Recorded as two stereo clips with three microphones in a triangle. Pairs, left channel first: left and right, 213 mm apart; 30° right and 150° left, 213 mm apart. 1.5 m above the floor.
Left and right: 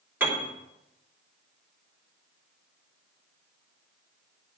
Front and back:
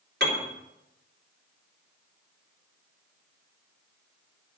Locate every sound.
0.2 s a piano: 170° right, 3 m